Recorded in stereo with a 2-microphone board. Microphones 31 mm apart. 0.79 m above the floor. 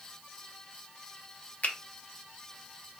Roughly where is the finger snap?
Left.